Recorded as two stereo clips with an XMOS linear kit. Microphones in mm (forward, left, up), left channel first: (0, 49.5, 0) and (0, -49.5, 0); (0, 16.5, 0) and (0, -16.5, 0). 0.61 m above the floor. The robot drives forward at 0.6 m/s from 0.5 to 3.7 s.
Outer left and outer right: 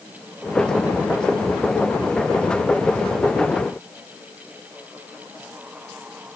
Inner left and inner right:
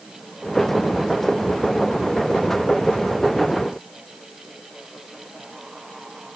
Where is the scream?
I don't hear a scream.